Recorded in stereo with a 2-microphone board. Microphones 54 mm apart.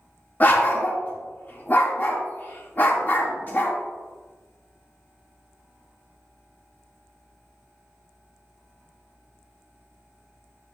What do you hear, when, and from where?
0.4 s a dog barking: 35° left (ahead or behind), 1.6 m